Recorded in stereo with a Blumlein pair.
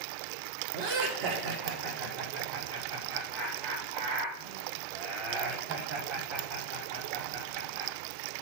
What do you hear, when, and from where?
0.7 s laughter: 40° right, 3 m